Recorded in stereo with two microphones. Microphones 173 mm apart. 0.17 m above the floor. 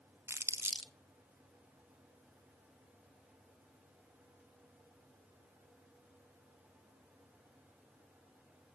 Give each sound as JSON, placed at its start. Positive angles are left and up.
{"t": 0.3, "sound": "crumpling", "side_deg": -15, "distance_m": 0.7}